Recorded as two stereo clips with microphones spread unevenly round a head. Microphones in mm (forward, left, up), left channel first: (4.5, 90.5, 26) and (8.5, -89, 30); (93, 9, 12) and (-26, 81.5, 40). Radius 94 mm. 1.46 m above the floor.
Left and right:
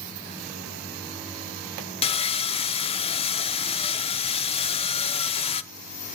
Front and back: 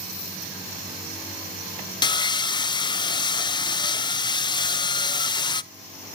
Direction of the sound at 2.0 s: 30° left.